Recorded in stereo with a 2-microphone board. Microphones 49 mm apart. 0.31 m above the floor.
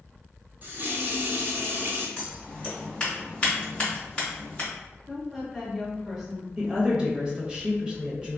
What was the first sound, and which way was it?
A running tap, 40° right (ahead or behind).